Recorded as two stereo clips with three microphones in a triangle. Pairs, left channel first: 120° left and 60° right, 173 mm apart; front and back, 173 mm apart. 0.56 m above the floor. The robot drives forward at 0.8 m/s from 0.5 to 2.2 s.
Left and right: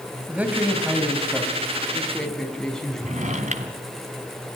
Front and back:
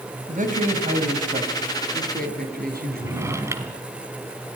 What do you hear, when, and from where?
0.3 s a man speaking: 140° right, 3 m; by 3.5 s 155° right, 4 m
3.0 s a drawer: 105° right, 1.6 m